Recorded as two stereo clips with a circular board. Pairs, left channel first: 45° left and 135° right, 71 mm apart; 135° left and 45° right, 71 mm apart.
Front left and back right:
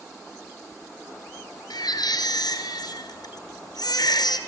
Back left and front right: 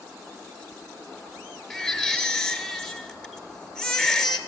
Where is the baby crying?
55° left, 2.0 m.